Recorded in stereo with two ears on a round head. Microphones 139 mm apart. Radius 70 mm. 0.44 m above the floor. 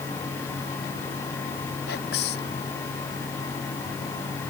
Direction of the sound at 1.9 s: 75° left (ahead or behind).